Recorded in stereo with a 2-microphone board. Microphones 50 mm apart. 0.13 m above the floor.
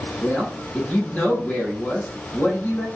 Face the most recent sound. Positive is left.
turn(degrees=25)  # may be behind; listen again after turning